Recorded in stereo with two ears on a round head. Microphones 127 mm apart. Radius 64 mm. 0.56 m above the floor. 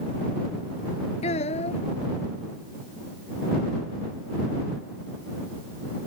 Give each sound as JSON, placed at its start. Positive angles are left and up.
{"t": 1.2, "sound": "a child speaking", "side_deg": 45}